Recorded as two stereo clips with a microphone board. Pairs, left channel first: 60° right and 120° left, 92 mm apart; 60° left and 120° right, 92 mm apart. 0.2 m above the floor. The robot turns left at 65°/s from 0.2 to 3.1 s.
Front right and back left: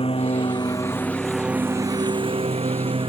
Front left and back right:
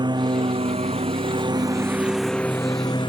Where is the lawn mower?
80° right; by 3.1 s 95° left.